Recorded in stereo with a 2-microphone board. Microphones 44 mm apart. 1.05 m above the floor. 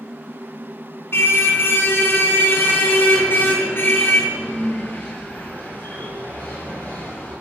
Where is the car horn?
65° left (ahead or behind), 4 m; by 7.3 s 50° left (ahead or behind), 11.5 m.